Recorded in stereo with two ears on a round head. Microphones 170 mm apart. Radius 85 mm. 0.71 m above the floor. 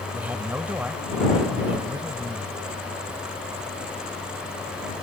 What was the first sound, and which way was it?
A man speaking, 10° right (ahead or behind).